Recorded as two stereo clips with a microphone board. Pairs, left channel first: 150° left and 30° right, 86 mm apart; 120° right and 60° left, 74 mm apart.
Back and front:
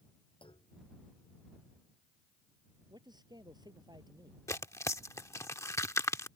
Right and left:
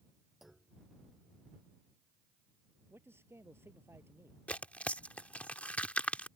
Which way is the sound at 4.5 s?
Straight behind.